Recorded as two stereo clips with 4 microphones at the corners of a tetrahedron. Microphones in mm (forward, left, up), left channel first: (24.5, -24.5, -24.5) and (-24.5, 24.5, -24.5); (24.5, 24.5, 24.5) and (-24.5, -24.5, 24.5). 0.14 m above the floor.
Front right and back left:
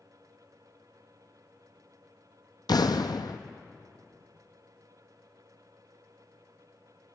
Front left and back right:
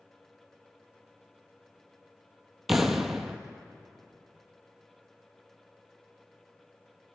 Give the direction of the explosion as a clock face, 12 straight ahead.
2 o'clock.